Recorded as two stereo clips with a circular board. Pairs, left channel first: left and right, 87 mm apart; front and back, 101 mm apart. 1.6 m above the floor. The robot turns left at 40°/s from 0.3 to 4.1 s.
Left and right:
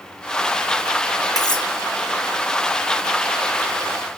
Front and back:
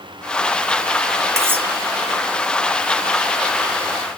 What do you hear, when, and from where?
1.4 s cutlery clinking: 120° left, 1.4 m; by 1.7 s 110° left, 1.4 m